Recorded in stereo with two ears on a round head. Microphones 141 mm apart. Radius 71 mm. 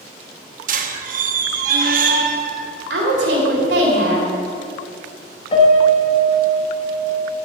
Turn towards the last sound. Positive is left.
turn(degrees=40)  # may be behind; listen again after turning